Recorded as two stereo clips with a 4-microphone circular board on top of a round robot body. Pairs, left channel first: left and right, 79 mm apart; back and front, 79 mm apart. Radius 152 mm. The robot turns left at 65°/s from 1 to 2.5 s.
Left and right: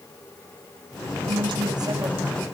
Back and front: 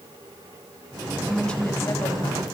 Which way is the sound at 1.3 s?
90° right.